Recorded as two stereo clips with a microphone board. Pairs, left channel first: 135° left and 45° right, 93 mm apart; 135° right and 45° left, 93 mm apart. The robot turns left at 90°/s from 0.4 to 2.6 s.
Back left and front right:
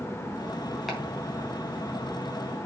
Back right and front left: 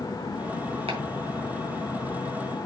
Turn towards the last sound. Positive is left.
turn(degrees=-110)